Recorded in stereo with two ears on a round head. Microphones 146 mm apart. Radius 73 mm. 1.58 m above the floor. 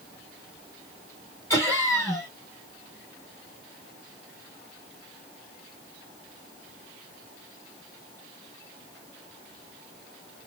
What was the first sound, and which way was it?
Laughter, 20° left (ahead or behind).